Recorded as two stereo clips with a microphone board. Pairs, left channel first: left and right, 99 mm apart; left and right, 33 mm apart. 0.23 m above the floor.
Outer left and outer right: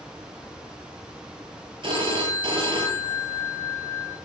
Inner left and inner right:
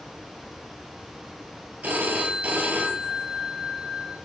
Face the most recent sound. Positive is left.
turn(degrees=-55)  # may be behind; listen again after turning